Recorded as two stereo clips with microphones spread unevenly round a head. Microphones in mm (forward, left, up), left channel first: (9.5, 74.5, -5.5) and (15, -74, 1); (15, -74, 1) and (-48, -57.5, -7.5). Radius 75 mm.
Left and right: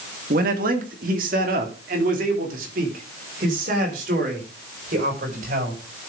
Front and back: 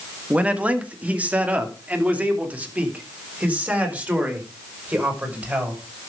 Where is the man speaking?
125° right, 1.9 m; by 5.8 s 130° right, 6 m.